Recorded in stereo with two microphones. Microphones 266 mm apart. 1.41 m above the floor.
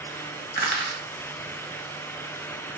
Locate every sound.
0.6 s crushing: 40° right (ahead or behind), 1.2 m